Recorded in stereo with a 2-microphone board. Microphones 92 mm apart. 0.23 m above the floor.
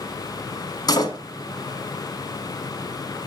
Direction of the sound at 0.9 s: 45° left (ahead or behind).